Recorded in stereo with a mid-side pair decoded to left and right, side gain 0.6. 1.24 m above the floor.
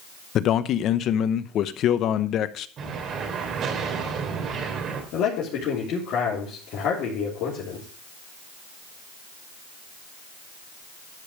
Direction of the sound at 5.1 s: 65° left.